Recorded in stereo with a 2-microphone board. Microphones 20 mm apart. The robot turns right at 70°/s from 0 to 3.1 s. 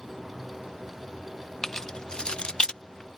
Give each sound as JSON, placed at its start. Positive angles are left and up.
{"t": 1.6, "sound": "keys jangling", "side_deg": 20}